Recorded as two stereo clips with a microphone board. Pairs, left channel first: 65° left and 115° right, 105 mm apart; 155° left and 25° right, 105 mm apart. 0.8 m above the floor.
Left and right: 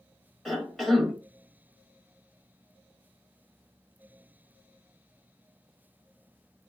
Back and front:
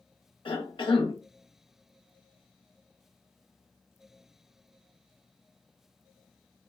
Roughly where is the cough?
Behind left.